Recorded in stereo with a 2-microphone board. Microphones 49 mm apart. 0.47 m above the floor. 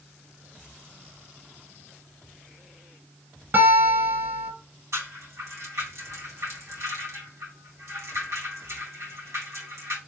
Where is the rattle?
70° right (ahead or behind), 1.7 m.